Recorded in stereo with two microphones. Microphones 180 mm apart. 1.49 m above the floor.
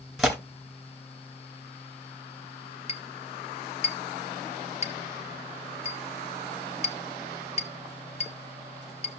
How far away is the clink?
About 1.2 m.